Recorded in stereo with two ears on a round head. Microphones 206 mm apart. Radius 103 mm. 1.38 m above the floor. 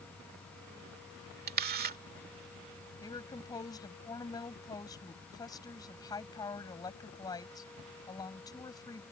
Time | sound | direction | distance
1.5 | a camera shutter | 40° right (ahead or behind) | ?
3.0 | a woman speaking | 15° left (ahead or behind) | ?